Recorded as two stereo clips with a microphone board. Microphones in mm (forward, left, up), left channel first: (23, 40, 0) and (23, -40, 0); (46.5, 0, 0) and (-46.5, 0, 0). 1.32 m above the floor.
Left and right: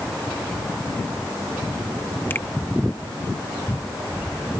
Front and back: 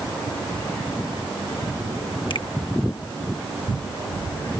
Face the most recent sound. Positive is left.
turn(degrees=30)